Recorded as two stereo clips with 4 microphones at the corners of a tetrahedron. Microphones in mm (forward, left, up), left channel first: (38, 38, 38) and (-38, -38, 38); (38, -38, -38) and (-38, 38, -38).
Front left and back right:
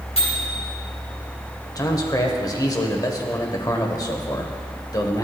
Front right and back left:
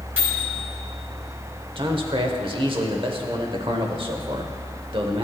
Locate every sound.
0.2 s a microwave: 65° left, 3 m
1.8 s a man speaking: 100° left, 0.9 m